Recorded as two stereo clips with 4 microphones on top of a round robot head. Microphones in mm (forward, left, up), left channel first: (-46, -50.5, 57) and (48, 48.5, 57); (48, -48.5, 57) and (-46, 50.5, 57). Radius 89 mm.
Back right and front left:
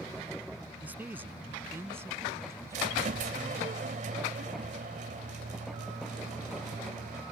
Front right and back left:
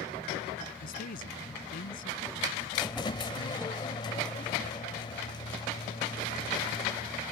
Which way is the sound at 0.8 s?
35° right.